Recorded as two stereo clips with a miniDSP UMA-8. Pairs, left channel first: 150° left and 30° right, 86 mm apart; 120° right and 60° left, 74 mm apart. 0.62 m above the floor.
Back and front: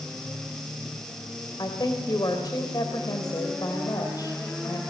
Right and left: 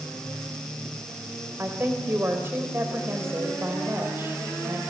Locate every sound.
1.6 s a woman speaking: 115° left, 3 m